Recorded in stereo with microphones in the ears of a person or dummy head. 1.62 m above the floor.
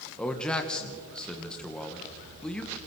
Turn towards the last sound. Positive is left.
turn(degrees=10)  # may be behind; listen again after turning